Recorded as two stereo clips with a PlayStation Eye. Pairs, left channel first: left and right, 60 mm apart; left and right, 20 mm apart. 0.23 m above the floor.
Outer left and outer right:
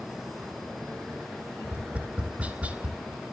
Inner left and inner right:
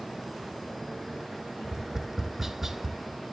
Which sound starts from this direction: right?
Tapping, at 1.6 s.